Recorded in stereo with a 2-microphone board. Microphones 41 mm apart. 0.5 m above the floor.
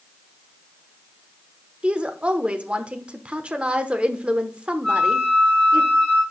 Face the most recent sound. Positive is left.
turn(degrees=5)  # may be behind; listen again after turning